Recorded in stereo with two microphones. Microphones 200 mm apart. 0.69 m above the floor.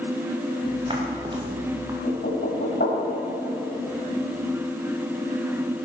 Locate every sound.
0.6 s footsteps: 30° right (ahead or behind), 4.5 m; by 1.9 s 20° right (ahead or behind), 4 m
2.0 s knocking: 65° left (ahead or behind), 4 m